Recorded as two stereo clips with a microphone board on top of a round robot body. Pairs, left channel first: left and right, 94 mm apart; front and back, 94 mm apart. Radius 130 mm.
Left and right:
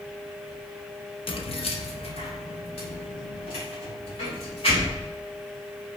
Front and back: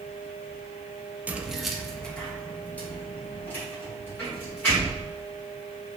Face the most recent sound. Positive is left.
turn(degrees=70)